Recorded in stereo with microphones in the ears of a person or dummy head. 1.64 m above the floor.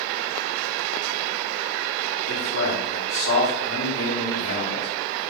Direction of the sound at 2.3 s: 50° left (ahead or behind).